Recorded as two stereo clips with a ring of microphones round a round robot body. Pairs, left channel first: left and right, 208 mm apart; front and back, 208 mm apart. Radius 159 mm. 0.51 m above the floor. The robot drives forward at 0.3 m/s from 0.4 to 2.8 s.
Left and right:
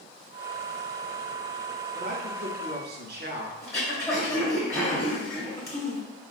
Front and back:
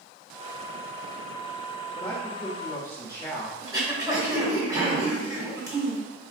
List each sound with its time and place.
1.9 s a man speaking: 60° right, 1.2 m; by 3.5 s 75° right, 1.1 m
3.6 s throat clearing: 140° left, 1.3 m